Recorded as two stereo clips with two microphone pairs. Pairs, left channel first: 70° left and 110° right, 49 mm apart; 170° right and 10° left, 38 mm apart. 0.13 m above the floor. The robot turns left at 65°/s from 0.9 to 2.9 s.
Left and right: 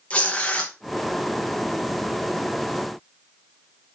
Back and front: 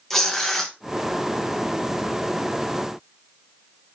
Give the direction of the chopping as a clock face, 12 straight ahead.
I don't hear chopping.